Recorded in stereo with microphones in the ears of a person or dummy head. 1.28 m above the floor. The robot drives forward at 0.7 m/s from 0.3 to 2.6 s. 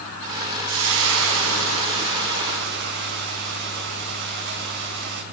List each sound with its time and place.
0.7 s frying: 75° right (ahead or behind), 4.5 m; by 5.2 s 60° right (ahead or behind), 5 m